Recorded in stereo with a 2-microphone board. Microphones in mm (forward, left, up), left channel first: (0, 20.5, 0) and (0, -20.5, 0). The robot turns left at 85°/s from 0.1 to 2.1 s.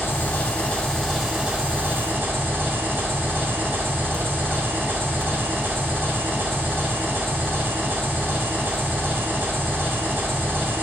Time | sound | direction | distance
0.0 | an engine running | 90° left | 1.6 m